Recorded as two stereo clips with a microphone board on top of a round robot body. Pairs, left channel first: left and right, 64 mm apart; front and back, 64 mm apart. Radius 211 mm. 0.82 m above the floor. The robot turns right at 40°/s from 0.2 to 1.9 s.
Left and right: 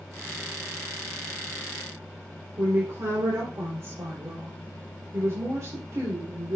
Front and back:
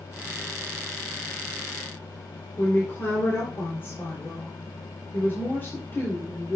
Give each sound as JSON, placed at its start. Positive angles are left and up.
{"t": 2.6, "sound": "a woman speaking", "azimuth_deg": -50, "distance_m": 3.5}